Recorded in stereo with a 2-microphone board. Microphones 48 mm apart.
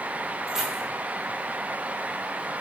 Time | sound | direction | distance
0.5 | keys jangling | 5° right (ahead or behind) | 1.2 m